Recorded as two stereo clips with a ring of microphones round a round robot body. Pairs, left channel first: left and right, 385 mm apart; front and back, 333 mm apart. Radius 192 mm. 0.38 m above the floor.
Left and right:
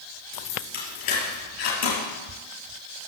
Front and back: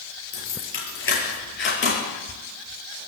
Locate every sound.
0.3 s keys jangling: 50° left, 6 m; by 2.0 s 55° left, 6.5 m